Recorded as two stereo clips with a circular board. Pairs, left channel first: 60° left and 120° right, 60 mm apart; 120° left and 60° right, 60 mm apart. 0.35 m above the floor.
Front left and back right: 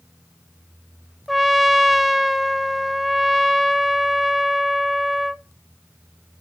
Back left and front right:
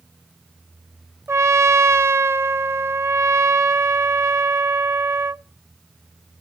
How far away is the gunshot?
No gunshot in this recording.